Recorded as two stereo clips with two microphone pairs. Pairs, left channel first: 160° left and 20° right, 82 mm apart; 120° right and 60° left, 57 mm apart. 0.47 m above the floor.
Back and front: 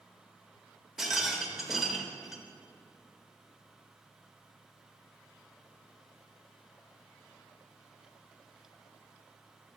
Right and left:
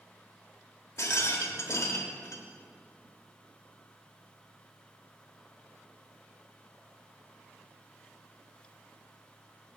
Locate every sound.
1.0 s a rattle: 100° right, 0.7 m